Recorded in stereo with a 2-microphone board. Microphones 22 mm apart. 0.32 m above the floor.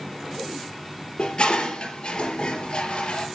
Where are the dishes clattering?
50° left (ahead or behind), 3.5 m.